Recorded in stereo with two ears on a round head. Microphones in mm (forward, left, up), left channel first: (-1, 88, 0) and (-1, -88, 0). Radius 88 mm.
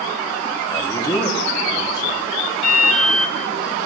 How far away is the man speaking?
About 1.8 m.